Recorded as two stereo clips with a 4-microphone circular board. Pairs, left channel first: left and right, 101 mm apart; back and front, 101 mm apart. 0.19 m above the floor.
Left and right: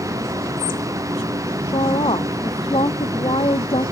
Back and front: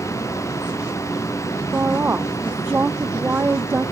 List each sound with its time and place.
1.7 s a woman speaking: 70° left